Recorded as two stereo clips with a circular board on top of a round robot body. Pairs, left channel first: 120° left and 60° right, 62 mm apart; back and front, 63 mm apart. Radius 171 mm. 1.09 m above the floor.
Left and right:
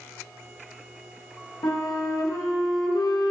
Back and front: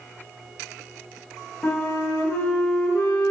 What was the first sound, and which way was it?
A flute, 115° left.